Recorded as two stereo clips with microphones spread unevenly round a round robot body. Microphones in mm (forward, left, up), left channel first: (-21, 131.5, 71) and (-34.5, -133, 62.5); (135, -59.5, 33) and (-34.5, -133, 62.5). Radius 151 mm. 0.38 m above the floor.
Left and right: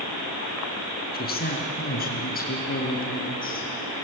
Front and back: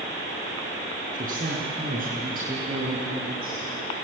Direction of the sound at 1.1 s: 140° left.